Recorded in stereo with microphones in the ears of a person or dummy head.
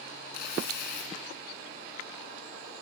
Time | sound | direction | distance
0.3 | tearing paper | 55° left (ahead or behind) | 2.5 m